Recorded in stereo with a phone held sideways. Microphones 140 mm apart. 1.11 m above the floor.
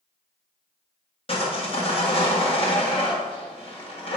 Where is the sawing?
40° left (ahead or behind), 1.5 m.